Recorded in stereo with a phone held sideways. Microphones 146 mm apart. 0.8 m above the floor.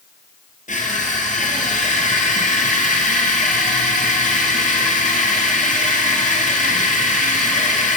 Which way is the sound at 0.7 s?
55° left (ahead or behind).